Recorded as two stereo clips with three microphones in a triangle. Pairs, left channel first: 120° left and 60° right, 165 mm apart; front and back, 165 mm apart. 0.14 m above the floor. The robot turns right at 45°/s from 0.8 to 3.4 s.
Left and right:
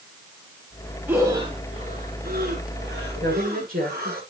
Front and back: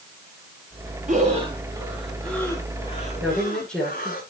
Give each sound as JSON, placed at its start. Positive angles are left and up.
{"t": 1.1, "sound": "breathing", "azimuth_deg": -140, "distance_m": 3.0}
{"t": 3.2, "sound": "a woman speaking", "azimuth_deg": -95, "distance_m": 8.0}